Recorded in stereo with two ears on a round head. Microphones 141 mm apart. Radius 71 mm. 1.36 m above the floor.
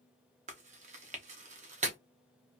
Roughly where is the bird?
I don't hear a bird.